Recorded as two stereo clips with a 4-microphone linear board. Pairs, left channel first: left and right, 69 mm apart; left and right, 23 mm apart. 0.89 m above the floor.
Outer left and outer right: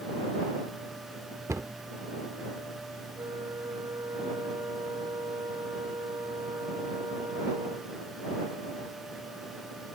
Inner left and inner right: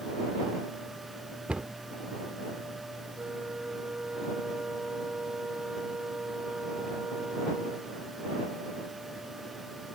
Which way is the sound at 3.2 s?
70° right (ahead or behind).